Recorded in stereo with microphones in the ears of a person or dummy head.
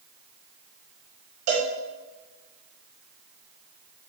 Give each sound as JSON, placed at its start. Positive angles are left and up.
{"t": 1.5, "sound": "a cowbell", "side_deg": -60, "distance_m": 3.0}